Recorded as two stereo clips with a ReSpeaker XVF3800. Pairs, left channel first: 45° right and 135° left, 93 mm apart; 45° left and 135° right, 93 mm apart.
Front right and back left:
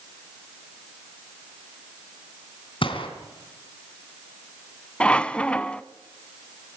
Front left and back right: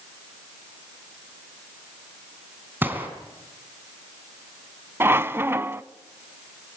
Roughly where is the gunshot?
Ahead right.